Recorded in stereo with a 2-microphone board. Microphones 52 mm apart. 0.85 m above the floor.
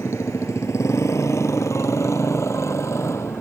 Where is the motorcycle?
85° left; by 3.4 s 75° left (ahead or behind).